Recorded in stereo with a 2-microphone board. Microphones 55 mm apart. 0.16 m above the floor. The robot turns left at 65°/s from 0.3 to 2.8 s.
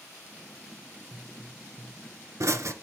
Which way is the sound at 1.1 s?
5° right (ahead or behind).